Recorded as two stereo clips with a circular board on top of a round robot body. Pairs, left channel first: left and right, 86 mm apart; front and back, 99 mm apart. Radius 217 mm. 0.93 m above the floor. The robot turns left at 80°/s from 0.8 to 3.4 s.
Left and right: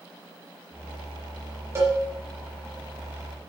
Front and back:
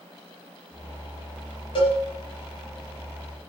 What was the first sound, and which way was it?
A cowbell, 35° right.